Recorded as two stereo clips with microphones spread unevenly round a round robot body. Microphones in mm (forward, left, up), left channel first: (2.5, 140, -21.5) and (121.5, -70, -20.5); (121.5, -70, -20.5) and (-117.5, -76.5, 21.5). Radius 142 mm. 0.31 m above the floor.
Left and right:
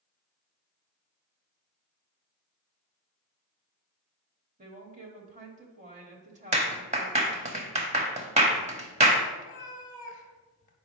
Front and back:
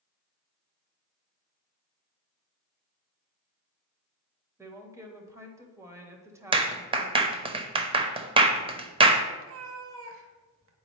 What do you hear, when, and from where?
4.6 s a woman speaking: 95° right, 1.0 m
6.5 s a clap: 110° right, 0.8 m
9.4 s a cat meowing: 170° left, 0.8 m